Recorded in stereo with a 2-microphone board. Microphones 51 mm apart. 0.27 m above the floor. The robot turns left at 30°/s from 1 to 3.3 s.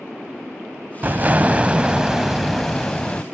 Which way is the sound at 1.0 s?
135° right.